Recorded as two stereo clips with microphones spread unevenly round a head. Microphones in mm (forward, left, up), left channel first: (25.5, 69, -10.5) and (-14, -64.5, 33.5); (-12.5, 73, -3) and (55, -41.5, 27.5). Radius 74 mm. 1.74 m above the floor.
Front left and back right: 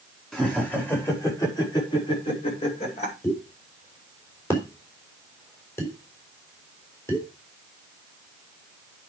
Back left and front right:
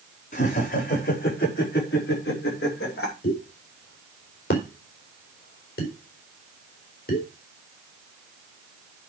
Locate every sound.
0.3 s laughter: 160° left, 5 m; by 3.1 s 120° left, 7 m
3.2 s a pop: 150° left, 4 m